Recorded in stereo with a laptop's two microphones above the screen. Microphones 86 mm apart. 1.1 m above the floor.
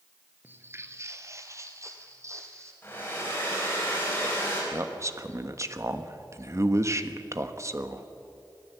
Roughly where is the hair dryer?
Left.